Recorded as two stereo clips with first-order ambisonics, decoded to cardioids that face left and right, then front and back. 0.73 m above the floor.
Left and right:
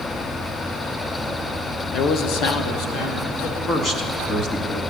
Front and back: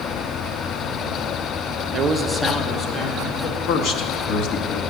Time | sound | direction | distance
1.9 | a man speaking | 140° left | 0.6 m
3.7 | a man speaking | 35° left | 1.0 m